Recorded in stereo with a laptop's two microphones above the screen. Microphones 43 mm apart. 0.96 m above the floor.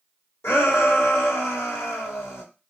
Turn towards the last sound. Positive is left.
turn(degrees=80)